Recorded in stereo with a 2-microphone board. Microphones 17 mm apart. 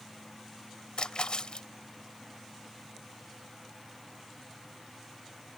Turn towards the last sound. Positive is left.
turn(degrees=60)  # may be behind; listen again after turning